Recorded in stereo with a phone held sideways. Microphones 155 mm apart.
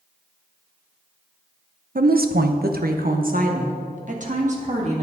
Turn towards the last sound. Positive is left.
turn(degrees=-50)  # may be behind; listen again after turning